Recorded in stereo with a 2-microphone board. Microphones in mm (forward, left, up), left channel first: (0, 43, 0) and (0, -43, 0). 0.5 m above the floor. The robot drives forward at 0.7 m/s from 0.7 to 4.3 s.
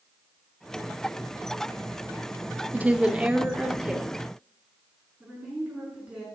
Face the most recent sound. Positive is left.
turn(degrees=-15)  # may be behind; listen again after turning